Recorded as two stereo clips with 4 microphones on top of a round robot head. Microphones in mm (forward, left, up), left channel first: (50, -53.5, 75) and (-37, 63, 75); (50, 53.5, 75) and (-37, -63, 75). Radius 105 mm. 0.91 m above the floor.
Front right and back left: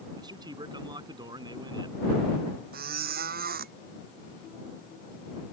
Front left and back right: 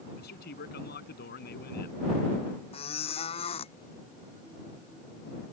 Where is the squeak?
105° left.